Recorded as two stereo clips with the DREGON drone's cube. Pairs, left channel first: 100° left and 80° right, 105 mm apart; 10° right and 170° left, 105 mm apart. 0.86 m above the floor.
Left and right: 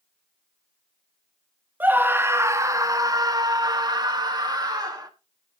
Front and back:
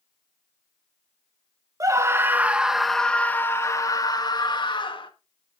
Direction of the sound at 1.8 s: 140° right.